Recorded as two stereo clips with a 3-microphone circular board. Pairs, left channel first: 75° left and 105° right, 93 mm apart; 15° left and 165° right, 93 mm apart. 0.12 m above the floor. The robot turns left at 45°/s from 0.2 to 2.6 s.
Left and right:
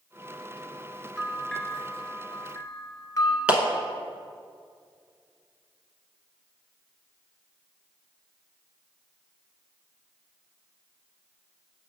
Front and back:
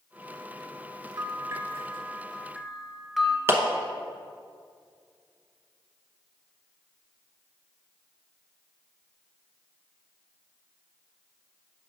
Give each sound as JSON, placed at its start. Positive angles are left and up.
{"t": 1.2, "sound": "a bell", "azimuth_deg": 170, "distance_m": 0.8}
{"t": 3.5, "sound": "a clap", "azimuth_deg": -165, "distance_m": 0.9}